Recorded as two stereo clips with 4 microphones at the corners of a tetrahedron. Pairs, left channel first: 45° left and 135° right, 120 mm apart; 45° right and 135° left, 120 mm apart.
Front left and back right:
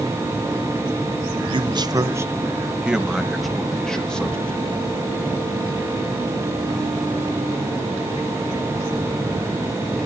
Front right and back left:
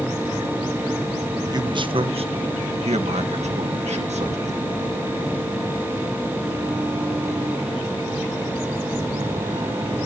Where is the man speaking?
175° right, 1.0 m; by 4.8 s 125° left, 3 m.